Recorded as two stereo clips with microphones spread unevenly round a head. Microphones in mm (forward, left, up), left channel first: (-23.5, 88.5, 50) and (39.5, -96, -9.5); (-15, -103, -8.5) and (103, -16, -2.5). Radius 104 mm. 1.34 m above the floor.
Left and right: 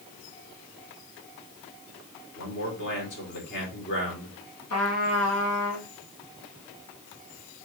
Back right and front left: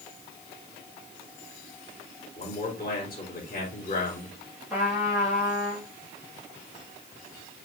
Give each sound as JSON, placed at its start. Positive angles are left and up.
{"t": 2.4, "sound": "a man speaking", "azimuth_deg": 145, "distance_m": 3.5}
{"t": 4.7, "sound": "a trumpet", "azimuth_deg": 125, "distance_m": 2.0}